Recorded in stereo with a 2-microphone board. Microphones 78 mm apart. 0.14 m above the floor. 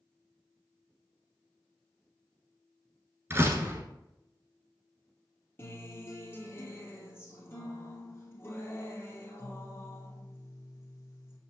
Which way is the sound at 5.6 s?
30° left (ahead or behind).